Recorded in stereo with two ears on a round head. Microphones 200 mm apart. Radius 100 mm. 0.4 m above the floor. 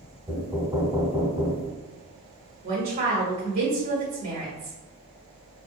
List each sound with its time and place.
0.3 s knocking: 15° right (ahead or behind), 1.1 m
2.6 s a woman speaking: 25° right (ahead or behind), 1.6 m